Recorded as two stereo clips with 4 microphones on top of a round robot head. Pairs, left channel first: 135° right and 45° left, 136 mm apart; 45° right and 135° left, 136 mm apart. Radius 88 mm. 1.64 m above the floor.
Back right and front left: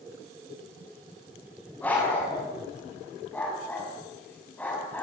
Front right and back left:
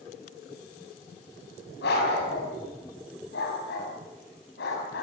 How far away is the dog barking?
About 5.5 m.